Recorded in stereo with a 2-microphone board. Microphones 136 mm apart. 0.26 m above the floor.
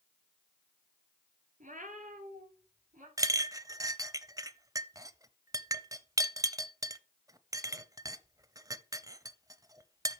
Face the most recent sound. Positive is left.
turn(degrees=-25)  # may be behind; listen again after turning